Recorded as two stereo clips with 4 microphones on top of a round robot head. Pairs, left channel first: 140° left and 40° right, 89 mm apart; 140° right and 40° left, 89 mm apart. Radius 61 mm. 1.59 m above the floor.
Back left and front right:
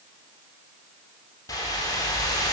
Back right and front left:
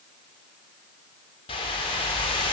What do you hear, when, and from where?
1.5 s a whoosh: 170° right, 3.5 m